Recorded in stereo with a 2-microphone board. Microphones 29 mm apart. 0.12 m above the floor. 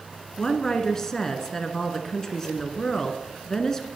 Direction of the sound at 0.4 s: 20° left (ahead or behind).